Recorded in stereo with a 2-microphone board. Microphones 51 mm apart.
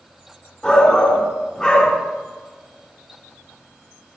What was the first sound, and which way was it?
A shout, 15° left (ahead or behind).